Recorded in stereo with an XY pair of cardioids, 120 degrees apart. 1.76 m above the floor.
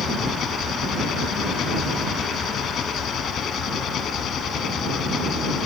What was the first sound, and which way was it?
An engine running, 55° left.